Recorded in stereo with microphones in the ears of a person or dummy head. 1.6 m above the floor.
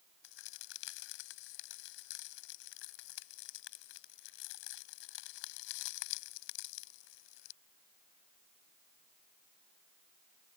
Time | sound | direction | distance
0.2 | a crack | 70° left (ahead or behind) | ?